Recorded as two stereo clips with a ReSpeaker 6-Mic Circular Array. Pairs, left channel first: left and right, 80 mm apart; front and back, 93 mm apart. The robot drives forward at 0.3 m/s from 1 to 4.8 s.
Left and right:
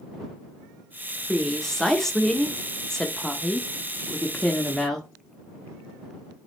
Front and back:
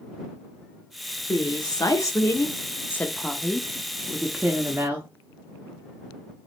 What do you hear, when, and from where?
1.3 s a woman speaking: 5° left, 1.0 m; by 5.1 s 165° left, 0.7 m